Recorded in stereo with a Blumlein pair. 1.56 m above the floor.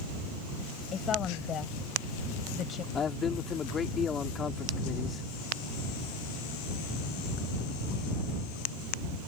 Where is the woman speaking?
25° left.